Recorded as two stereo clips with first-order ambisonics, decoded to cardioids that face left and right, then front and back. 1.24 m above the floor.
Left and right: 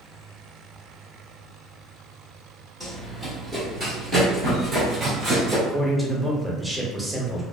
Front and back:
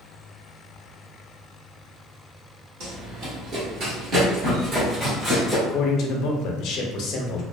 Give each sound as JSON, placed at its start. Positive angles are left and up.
{"t": 2.8, "sound": "running footsteps", "azimuth_deg": -175, "distance_m": 1.9}
{"t": 5.7, "sound": "a man speaking", "azimuth_deg": -5, "distance_m": 0.6}